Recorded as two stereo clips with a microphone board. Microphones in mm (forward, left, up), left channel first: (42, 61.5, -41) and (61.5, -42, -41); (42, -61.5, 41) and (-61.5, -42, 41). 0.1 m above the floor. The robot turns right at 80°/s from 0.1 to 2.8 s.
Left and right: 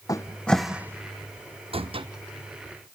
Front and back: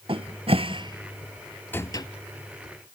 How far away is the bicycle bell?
I don't hear a bicycle bell.